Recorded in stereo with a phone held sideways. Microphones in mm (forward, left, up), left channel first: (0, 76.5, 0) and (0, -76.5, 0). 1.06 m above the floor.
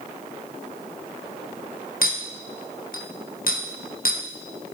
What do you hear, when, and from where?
2.0 s a clink: 65° left (ahead or behind), 0.7 m